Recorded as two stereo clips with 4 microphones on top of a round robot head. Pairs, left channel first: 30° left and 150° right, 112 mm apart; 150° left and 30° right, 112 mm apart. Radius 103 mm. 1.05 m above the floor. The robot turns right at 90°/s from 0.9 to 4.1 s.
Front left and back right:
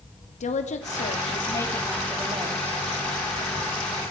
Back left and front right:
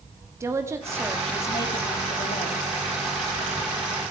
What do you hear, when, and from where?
0.4 s a woman speaking: 35° left, 2.5 m; by 2.8 s 155° right, 2.5 m